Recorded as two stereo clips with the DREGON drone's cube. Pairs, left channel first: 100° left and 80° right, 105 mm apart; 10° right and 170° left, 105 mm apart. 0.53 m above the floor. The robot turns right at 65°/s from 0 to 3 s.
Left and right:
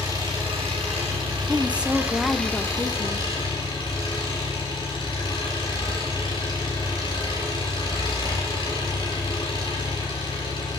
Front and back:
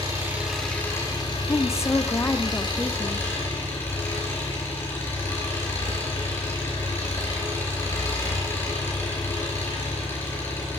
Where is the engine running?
140° right, 5.5 m; by 10.8 s 55° left, 5.5 m.